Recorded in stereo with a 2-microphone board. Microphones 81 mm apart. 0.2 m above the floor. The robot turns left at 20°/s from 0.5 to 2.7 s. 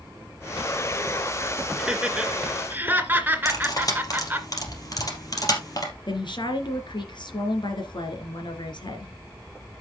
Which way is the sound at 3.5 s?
45° left (ahead or behind).